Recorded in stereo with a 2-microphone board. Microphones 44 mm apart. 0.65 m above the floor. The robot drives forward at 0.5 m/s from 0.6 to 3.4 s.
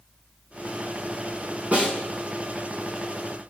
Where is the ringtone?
I don't hear a ringtone.